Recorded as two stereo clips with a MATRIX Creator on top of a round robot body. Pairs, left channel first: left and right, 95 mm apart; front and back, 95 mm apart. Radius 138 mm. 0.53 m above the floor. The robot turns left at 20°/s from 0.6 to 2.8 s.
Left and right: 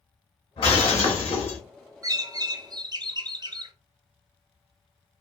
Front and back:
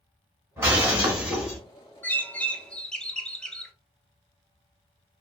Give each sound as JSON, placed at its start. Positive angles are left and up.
{"t": 0.6, "sound": "breaking glass", "azimuth_deg": 115, "distance_m": 1.9}
{"t": 2.0, "sound": "a bird", "azimuth_deg": -65, "distance_m": 0.7}